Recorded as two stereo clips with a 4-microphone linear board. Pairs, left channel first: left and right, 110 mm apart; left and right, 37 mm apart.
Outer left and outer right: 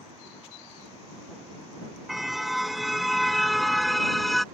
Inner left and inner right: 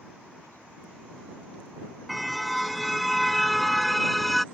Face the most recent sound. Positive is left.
turn(degrees=0)  # may be behind; listen again after turning